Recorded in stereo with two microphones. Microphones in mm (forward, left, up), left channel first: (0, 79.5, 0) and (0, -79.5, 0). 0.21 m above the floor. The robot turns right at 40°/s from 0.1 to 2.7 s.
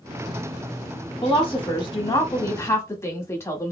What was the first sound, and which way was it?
A woman speaking, 90° left.